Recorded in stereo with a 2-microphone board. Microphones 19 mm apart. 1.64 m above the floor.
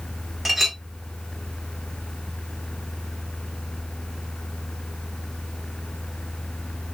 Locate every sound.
0.5 s a clink: 10° right (ahead or behind), 1.0 m